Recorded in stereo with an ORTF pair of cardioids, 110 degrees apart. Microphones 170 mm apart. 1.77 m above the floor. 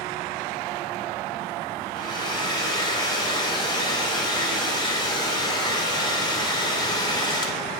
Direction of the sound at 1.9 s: 20° left.